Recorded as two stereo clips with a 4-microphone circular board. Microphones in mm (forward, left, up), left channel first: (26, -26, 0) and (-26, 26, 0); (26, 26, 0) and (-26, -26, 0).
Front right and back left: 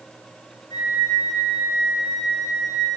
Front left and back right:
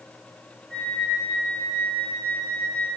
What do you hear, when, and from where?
0.7 s a flute: 30° right, 2.5 m